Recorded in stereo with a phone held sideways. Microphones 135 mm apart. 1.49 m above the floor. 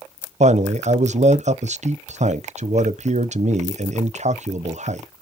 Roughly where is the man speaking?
Right.